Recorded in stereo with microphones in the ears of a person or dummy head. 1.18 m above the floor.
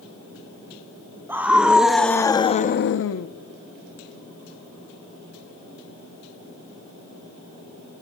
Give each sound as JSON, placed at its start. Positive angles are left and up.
{"t": 1.3, "sound": "a scream", "side_deg": -15, "distance_m": 1.4}